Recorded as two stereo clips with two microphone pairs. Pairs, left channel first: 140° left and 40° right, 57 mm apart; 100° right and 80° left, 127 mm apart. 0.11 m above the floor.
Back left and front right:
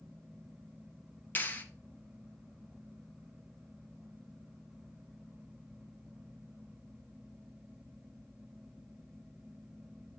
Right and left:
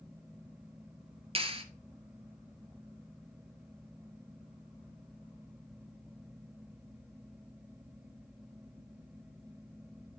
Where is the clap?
95° left, 1.2 m.